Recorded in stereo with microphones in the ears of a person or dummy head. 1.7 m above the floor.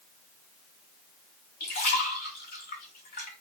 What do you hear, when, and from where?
1.6 s a splash: 50° left (ahead or behind), 2 m